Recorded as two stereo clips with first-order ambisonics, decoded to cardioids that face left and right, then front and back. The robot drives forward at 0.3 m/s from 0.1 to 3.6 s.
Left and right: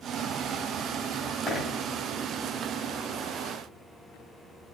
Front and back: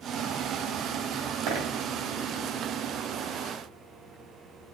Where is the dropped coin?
170° left, 2.5 m.